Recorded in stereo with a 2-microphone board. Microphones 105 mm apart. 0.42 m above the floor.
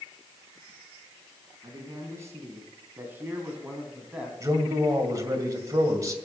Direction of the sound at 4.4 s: 35° right (ahead or behind).